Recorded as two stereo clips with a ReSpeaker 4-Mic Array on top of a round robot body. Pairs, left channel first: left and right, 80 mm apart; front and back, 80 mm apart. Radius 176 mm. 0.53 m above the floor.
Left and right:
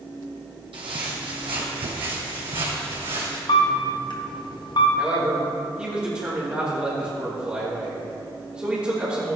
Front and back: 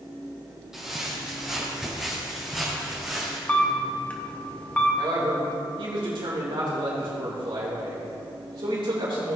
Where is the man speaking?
165° right, 2.5 m.